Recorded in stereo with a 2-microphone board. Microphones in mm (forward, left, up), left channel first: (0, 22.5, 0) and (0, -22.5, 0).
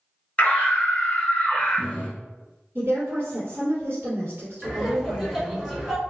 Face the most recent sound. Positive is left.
turn(degrees=0)  # may be behind; listen again after turning